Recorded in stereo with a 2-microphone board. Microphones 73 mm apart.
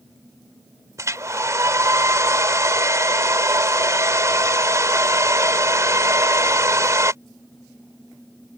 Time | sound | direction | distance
1.0 | a hair dryer | 45° right (ahead or behind) | ?